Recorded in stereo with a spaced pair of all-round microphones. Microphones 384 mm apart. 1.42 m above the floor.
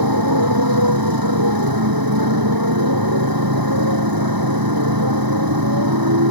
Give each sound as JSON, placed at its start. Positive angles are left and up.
{"t": 0.0, "sound": "a motorcycle", "side_deg": -65}